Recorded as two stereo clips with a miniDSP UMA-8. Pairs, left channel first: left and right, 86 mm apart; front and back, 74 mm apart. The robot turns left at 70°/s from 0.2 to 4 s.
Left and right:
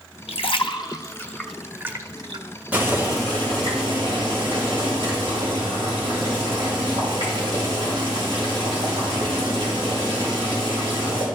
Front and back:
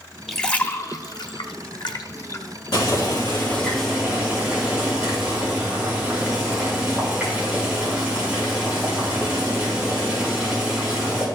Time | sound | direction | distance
0.3 | a splash | 90° left | 0.7 m
2.7 | boiling | 15° right | 5 m